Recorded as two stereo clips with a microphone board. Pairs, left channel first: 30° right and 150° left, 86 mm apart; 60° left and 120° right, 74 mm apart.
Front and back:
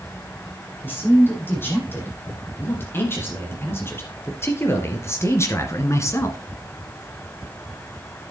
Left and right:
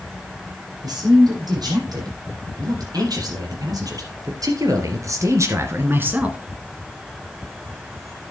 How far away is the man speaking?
About 7 m.